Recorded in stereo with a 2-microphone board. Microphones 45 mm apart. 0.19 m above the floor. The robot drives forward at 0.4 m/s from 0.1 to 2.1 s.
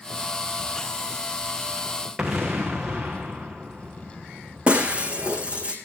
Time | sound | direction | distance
2.2 | an explosion | 10° right (ahead or behind) | 4 m
4.7 | breaking glass | 25° right (ahead or behind) | 3.5 m